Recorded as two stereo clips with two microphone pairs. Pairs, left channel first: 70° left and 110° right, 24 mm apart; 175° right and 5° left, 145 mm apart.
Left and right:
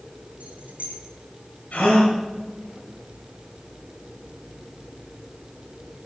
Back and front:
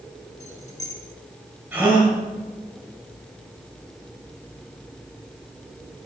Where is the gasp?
85° left, 8 m.